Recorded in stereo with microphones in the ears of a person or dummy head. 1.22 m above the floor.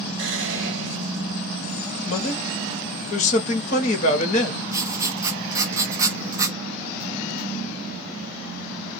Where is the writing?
15° right (ahead or behind), 0.6 m.